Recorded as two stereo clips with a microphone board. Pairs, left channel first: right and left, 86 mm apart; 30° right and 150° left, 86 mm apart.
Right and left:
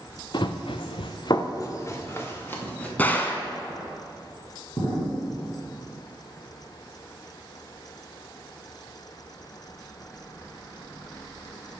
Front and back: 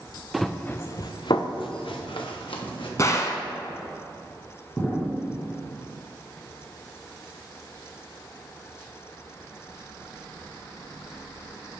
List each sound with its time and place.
0.3 s running footsteps: 125° right, 1.0 m; by 2.9 s 20° right, 2.5 m
3.0 s a gunshot: 35° right, 1.1 m
4.8 s an explosion: 85° right, 2 m